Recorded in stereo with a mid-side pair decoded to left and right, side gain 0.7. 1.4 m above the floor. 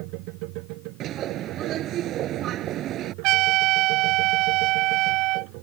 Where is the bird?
50° right.